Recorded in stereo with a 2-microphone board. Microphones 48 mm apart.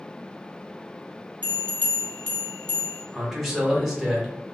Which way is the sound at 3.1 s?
10° right (ahead or behind).